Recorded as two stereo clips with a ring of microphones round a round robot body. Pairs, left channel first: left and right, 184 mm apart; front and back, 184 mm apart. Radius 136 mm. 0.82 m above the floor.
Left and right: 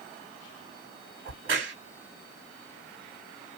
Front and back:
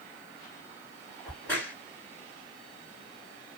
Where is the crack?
80° right, 1.7 m.